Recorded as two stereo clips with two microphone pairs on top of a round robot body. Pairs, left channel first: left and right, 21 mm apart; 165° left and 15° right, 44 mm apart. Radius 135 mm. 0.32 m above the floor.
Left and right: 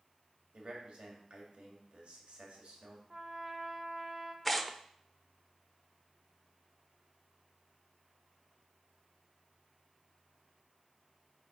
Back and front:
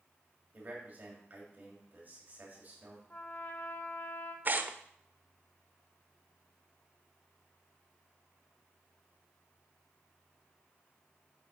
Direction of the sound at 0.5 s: 60° right.